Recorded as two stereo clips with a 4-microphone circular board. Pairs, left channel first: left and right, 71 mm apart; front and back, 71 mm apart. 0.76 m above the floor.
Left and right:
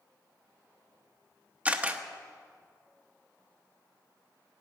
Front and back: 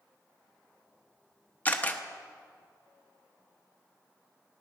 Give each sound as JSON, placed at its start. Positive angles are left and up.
{"t": 1.6, "sound": "a camera shutter", "azimuth_deg": -40, "distance_m": 0.8}